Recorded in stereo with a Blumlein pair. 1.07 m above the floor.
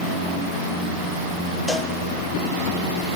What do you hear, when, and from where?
1.7 s a cowbell: 5° left, 0.6 m